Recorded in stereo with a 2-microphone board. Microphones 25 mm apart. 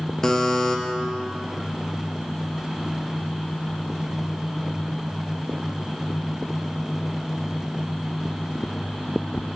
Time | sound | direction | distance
0.2 | a buzzer | 20° left (ahead or behind) | 0.7 m